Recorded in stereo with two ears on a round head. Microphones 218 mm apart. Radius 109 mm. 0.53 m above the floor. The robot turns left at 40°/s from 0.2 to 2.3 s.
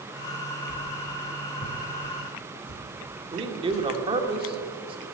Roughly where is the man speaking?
Right.